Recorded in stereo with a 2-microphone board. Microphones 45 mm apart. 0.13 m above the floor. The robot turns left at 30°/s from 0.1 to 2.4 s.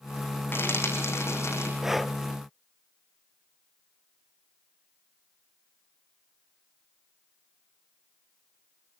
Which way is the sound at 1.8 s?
10° right (ahead or behind).